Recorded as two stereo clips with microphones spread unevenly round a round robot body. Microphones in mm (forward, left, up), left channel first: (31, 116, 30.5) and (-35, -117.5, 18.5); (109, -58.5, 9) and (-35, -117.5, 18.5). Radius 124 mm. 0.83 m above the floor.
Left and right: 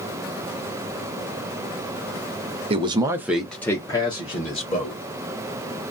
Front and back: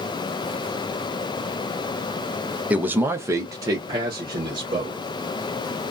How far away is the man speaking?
About 0.6 m.